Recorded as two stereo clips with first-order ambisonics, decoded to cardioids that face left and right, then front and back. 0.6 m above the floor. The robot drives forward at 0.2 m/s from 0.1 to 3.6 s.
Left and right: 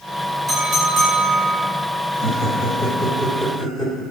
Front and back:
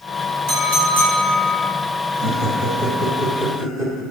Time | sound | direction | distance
0.5 | a clink | 170° right | 2.5 m
2.1 | laughter | 150° left | 1.5 m